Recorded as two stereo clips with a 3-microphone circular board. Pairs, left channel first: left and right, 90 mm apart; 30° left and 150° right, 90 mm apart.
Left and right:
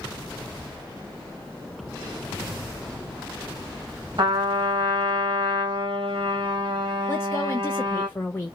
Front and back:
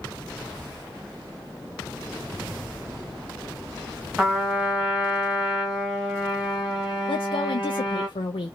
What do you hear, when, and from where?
4.2 s a trumpet: 65° right, 1.5 m
7.1 s a woman speaking: 30° left, 0.6 m